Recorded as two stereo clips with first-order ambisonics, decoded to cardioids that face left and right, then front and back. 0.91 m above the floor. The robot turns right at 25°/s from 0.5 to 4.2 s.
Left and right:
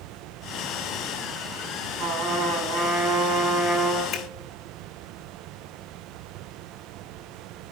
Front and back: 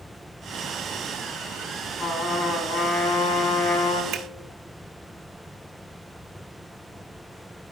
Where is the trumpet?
70° right, 4 m; by 4.0 s 15° right, 4 m.